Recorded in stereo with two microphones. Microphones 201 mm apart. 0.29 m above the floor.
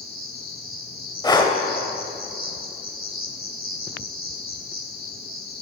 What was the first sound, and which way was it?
An insect, 50° left (ahead or behind).